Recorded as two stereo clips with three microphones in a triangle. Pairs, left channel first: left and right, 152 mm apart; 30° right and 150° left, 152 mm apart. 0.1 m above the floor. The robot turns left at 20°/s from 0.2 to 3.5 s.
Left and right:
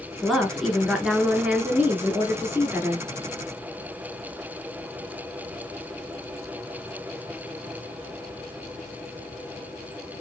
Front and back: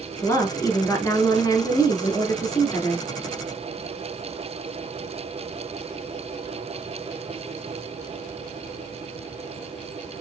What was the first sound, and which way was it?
A woman speaking, 5° left.